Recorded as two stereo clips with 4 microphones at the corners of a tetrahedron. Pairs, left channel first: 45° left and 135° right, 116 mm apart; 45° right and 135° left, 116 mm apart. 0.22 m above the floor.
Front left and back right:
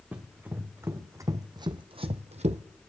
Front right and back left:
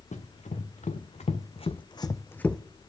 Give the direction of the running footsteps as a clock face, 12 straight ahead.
2 o'clock.